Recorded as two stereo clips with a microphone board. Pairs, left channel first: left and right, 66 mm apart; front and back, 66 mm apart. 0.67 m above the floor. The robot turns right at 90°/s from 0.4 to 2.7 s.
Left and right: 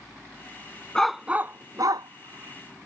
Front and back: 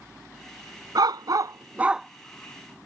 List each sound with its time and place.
0.9 s a dog barking: 170° left; by 2.9 s 35° right